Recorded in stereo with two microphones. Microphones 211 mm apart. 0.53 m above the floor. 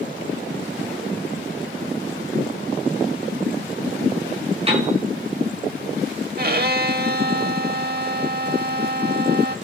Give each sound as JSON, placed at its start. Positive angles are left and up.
{"t": 4.7, "sound": "a piano", "side_deg": -30, "distance_m": 6.0}
{"t": 6.4, "sound": "a violin", "side_deg": -50, "distance_m": 0.6}